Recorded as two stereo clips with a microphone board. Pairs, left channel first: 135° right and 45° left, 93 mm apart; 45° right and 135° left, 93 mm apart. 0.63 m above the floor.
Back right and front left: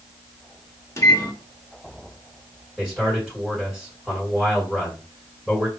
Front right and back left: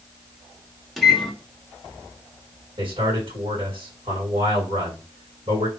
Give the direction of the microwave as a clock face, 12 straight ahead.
4 o'clock.